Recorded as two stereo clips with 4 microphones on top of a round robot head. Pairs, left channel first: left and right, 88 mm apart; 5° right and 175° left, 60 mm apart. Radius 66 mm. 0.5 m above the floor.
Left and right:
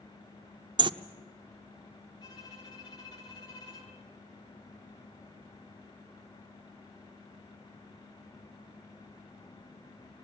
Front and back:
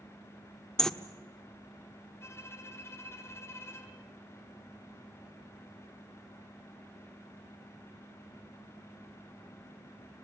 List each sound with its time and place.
0.8 s a bird: 85° right, 0.9 m
2.2 s a violin: 40° left, 4 m